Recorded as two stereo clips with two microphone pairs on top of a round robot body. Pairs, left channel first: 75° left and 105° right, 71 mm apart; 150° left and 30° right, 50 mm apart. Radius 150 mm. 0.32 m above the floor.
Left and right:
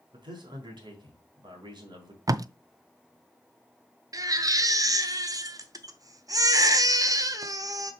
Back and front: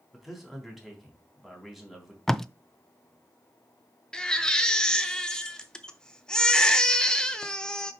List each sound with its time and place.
0.1 s a man speaking: 120° right, 3.5 m
2.3 s tape being pulled: 125° right, 0.6 m
4.1 s a baby crying: 130° right, 1.1 m